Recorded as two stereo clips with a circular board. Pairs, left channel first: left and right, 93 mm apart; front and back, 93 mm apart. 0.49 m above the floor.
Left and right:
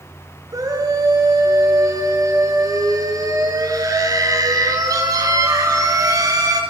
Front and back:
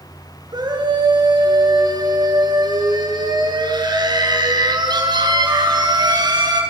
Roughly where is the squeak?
I don't hear a squeak.